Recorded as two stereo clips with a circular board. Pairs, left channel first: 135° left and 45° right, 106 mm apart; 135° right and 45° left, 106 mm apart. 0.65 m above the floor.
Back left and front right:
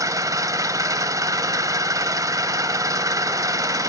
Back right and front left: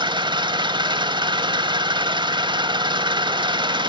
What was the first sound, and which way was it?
An engine running, 10° left.